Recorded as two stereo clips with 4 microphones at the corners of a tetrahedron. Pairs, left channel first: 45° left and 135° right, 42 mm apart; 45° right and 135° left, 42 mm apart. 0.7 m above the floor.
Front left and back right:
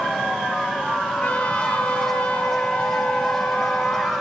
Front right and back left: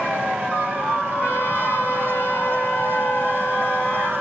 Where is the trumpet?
20° right, 7 m.